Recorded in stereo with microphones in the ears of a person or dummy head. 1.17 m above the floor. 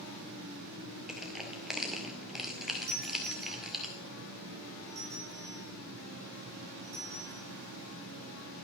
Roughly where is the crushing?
Centre.